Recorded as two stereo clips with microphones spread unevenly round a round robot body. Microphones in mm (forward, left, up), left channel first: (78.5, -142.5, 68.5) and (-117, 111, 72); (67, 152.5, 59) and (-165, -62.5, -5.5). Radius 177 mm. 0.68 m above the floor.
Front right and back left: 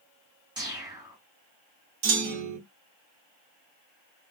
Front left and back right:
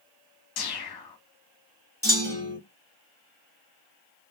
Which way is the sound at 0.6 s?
50° left.